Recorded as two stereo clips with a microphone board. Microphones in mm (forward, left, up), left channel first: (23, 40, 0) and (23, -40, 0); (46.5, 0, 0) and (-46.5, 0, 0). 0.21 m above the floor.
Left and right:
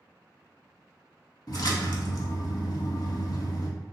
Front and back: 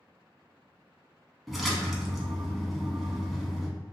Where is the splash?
90° left, 0.6 m.